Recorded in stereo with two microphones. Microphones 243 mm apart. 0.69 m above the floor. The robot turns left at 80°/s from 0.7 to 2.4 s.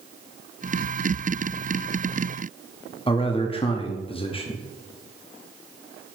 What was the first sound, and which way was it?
A man speaking, 25° left (ahead or behind).